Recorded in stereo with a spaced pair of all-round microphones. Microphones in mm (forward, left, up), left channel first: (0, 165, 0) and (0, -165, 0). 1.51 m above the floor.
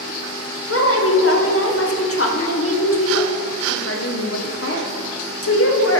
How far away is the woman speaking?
About 1.1 m.